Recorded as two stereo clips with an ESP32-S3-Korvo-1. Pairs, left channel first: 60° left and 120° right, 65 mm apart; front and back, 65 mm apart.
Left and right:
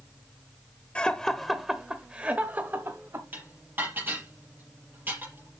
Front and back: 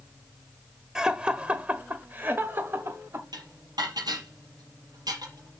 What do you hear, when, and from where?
0.9 s laughter: 110° left, 1.1 m; by 3.2 s 145° right, 1.4 m
3.3 s dishes clattering: straight behind, 5.5 m